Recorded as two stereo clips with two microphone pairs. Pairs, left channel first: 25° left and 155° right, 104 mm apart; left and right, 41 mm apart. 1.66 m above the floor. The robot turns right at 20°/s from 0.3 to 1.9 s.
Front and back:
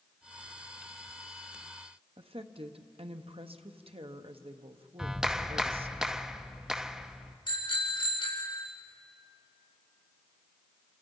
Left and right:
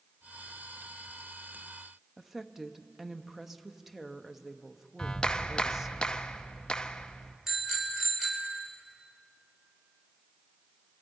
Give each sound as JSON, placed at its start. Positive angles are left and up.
{"t": 2.2, "sound": "a woman speaking", "azimuth_deg": -170, "distance_m": 1.0}
{"t": 5.0, "sound": "a clap", "azimuth_deg": 120, "distance_m": 0.7}
{"t": 7.5, "sound": "a bicycle bell", "azimuth_deg": -5, "distance_m": 4.5}